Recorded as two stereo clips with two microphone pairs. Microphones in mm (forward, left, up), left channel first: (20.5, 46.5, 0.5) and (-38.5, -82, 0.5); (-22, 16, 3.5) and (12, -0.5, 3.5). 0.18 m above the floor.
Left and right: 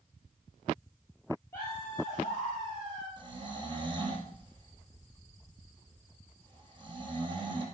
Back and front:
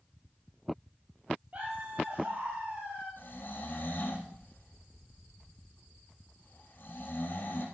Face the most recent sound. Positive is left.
turn(degrees=-170)